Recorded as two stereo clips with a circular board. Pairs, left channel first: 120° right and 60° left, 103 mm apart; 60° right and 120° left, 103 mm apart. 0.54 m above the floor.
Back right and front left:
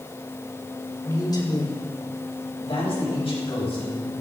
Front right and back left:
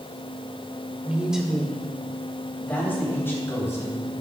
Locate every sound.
1.1 s a man speaking: 165° right, 2 m; by 4.1 s 120° right, 5 m